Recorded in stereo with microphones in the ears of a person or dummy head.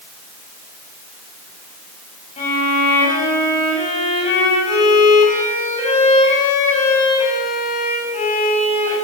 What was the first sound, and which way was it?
A violin, 40° left (ahead or behind).